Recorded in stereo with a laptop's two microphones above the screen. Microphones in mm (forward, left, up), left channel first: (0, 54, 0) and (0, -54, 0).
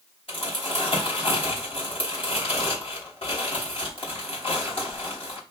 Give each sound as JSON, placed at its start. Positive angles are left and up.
{"t": 0.3, "sound": "crumpling", "side_deg": 60, "distance_m": 3.0}